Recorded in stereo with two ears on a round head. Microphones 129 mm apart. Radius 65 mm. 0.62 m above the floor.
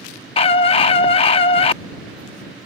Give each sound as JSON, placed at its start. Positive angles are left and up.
{"t": 0.4, "sound": "a scream", "side_deg": 40}